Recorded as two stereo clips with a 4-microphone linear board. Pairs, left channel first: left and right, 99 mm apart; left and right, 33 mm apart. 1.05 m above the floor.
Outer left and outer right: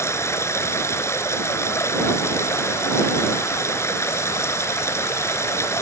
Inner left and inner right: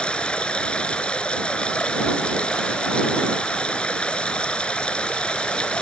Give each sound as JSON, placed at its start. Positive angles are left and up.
{"t": 0.0, "sound": "running water", "side_deg": 25}